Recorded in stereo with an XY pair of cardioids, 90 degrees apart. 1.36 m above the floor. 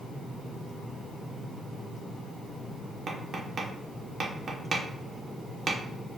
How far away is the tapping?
About 1.1 m.